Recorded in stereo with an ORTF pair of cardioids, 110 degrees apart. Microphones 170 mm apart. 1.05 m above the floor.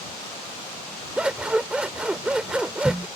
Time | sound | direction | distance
1.2 | scissors | 5° right | ?